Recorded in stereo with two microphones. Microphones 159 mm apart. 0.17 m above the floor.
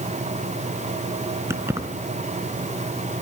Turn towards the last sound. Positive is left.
turn(degrees=-15)  # may be behind; listen again after turning